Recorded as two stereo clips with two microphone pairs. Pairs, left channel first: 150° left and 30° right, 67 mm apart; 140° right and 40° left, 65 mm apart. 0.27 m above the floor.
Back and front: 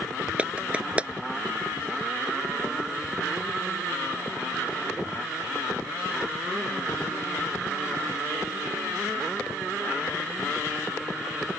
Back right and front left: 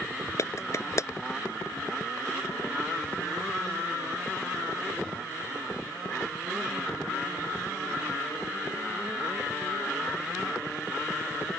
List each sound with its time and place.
0.4 s a clap: 105° right